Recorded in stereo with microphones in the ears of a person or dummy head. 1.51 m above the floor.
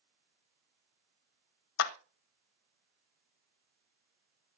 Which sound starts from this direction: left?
A clap, at 1.8 s.